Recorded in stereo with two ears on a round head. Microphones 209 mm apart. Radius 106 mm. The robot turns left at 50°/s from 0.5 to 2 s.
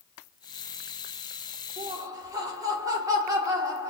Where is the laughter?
30° right (ahead or behind), 1.4 m; by 3.9 s 15° right (ahead or behind), 1.4 m.